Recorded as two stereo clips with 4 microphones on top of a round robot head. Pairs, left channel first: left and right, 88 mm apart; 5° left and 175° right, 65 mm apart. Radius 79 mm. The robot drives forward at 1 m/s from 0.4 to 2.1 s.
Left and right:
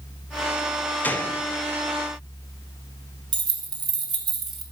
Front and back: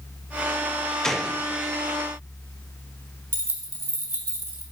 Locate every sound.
1.0 s a gunshot: 65° left, 0.7 m; by 1.4 s 140° left, 0.7 m
3.3 s keys jangling: 120° right, 0.8 m